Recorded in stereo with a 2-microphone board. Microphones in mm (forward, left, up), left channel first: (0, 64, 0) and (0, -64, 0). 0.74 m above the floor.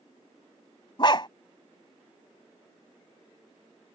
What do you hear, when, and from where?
1.0 s a dog barking: 40° left (ahead or behind)